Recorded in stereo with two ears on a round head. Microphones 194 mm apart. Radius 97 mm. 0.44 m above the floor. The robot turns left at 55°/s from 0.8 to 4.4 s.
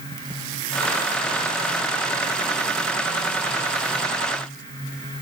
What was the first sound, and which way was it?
Only background noise.